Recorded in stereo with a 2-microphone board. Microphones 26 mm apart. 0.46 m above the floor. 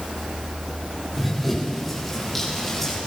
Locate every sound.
1.2 s running footsteps: centre (ahead or behind), 6.5 m; by 3.0 s 10° left (ahead or behind), 7 m